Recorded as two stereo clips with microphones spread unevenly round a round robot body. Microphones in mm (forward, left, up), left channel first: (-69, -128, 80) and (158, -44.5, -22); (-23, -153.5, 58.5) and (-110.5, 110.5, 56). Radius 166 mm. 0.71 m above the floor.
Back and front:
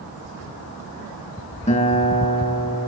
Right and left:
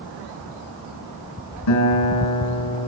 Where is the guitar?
95° right, 5 m.